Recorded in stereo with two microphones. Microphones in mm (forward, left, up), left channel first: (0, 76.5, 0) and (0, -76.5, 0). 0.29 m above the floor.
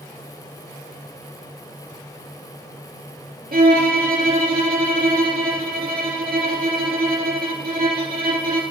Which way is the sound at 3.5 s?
85° right.